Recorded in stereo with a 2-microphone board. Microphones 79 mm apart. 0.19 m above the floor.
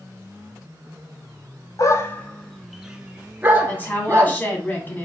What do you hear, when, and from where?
1.8 s a dog barking: 45° left (ahead or behind), 0.6 m; by 4.4 s 35° right (ahead or behind), 1.5 m
3.7 s a woman speaking: 25° left (ahead or behind), 1.4 m